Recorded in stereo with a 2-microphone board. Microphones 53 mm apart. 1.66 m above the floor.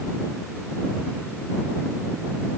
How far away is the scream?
No scream in this recording.